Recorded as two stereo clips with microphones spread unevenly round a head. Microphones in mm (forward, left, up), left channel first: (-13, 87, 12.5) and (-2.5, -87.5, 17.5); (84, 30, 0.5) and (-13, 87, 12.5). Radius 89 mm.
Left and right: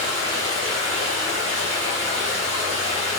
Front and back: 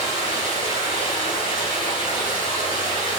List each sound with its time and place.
0.0 s running water: 65° right, 9 m